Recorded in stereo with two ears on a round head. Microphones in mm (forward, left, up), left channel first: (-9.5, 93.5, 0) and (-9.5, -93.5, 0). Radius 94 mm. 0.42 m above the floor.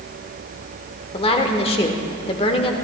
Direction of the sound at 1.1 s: 30° left (ahead or behind).